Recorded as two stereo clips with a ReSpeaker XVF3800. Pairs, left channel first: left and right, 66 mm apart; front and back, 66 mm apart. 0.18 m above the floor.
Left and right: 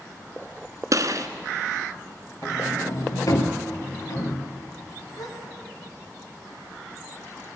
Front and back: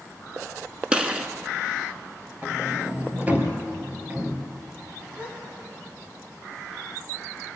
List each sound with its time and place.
0.9 s a gunshot: 105° right, 1.3 m
2.4 s a sliding door: 115° left, 2.5 m
5.2 s a gasp: 110° left, 5 m